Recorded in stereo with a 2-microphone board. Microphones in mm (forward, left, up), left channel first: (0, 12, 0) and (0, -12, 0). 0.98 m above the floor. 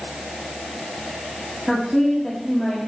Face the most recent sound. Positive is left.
turn(degrees=5)  # may be behind; listen again after turning